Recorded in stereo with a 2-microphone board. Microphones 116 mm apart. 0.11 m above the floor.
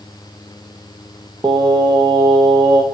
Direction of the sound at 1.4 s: 40° right (ahead or behind).